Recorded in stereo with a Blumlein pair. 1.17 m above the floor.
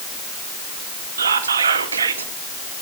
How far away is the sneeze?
I don't hear a sneeze.